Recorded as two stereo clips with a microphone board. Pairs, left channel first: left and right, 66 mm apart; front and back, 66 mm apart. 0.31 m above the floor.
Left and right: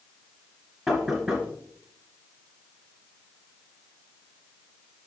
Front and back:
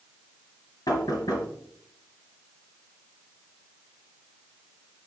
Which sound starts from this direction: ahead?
Knocking, at 0.9 s.